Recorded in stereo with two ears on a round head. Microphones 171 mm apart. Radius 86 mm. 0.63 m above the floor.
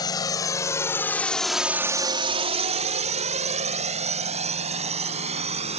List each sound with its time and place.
0.0 s a drone: 20° left (ahead or behind); by 5.8 s 35° right (ahead or behind)